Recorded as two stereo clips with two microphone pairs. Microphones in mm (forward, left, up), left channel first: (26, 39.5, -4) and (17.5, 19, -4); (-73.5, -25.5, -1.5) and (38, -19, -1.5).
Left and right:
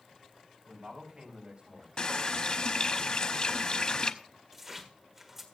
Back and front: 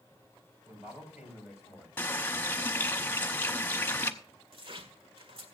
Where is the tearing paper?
35° right, 1.7 m.